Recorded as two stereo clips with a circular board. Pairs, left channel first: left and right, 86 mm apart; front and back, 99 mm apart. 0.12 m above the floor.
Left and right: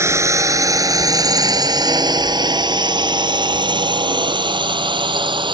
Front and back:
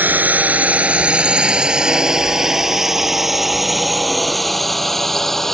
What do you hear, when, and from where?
0.0 s a drone: 120° right; by 5.5 s 85° right